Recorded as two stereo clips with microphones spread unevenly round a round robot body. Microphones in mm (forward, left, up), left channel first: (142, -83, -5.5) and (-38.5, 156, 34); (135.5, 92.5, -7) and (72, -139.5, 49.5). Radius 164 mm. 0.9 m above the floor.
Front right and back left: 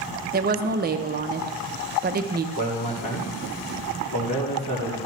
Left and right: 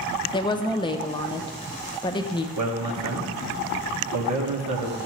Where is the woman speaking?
80° left, 0.6 m.